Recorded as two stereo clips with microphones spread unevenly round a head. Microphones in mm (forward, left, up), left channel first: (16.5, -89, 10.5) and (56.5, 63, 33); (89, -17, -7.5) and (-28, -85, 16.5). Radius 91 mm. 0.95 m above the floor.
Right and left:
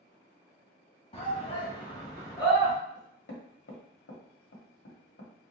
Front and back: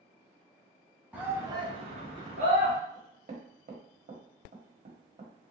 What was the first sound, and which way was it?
A shout, 65° right.